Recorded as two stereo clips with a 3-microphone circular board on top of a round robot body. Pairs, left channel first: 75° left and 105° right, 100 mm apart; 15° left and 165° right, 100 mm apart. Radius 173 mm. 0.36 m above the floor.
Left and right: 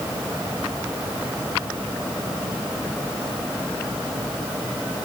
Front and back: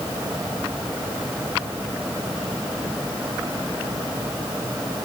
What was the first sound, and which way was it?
Only background noise.